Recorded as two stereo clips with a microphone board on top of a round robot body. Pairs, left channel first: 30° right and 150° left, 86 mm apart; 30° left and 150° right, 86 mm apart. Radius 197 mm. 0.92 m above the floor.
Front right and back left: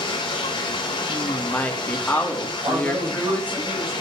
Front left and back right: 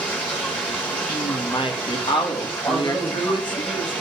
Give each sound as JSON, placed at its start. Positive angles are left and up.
{"t": 0.0, "sound": "running water", "azimuth_deg": -45, "distance_m": 1.0}
{"t": 1.1, "sound": "a woman speaking", "azimuth_deg": 40, "distance_m": 2.0}
{"t": 2.6, "sound": "a man speaking", "azimuth_deg": 95, "distance_m": 6.0}